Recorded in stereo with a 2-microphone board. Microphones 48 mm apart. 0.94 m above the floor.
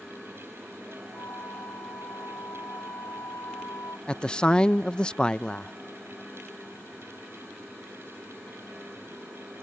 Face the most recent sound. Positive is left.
turn(degrees=20)  # may be behind; listen again after turning